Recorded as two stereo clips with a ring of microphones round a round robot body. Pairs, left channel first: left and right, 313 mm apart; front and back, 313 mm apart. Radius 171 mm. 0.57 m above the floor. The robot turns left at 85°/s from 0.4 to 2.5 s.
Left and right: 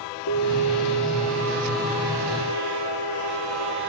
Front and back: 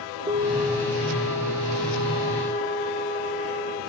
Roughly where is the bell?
Left.